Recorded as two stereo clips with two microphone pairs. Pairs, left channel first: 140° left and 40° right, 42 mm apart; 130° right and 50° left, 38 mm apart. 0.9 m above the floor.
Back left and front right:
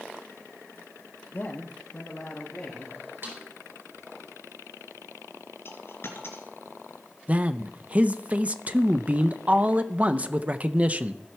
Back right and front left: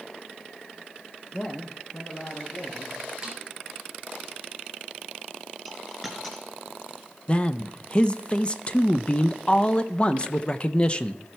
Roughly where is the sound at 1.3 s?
Behind left.